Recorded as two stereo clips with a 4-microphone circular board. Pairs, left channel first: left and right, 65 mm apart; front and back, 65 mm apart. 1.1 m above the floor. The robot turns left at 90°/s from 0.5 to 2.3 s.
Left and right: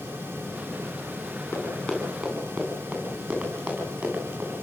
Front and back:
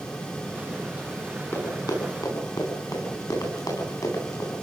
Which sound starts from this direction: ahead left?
Running footsteps, at 1.5 s.